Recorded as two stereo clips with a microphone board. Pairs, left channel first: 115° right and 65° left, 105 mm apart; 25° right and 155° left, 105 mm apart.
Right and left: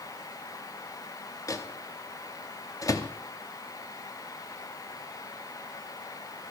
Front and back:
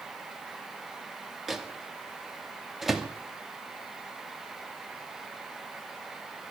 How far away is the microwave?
About 0.8 m.